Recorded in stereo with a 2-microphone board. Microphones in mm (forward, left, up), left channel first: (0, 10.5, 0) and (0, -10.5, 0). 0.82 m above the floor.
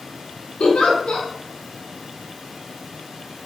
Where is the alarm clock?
I don't hear an alarm clock.